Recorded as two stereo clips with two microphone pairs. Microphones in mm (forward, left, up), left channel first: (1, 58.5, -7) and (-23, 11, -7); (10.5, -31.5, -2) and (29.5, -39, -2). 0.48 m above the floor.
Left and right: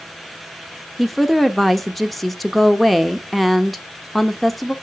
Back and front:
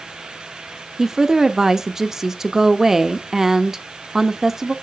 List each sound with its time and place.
1.0 s a woman speaking: 20° right, 0.8 m